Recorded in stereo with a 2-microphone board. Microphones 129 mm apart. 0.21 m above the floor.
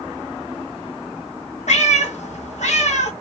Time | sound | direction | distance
1.7 | a cat meowing | 70° left (ahead or behind) | 1.4 m